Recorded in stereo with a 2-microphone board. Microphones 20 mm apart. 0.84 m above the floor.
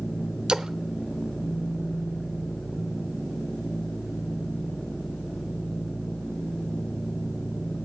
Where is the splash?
55° right (ahead or behind), 0.7 m.